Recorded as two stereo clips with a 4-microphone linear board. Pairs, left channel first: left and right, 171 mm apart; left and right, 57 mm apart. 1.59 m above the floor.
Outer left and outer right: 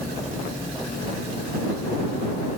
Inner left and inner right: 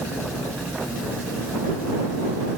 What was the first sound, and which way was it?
Only background noise.